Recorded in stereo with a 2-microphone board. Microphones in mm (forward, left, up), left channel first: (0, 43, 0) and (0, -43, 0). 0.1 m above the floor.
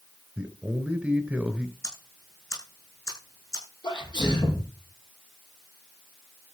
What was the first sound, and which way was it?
A man speaking, 10° right (ahead or behind).